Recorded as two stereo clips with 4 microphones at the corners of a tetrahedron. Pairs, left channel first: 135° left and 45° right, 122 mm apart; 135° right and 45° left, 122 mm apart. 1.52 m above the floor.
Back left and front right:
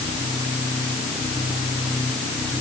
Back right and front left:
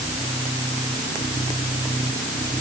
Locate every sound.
Only background noise.